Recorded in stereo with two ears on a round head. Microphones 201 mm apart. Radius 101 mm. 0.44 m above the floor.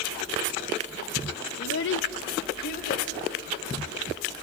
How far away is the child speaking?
About 0.8 m.